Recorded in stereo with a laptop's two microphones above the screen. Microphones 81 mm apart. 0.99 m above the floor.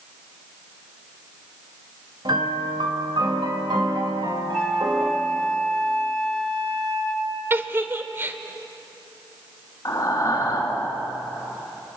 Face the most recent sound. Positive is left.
turn(degrees=40)  # may be behind; listen again after turning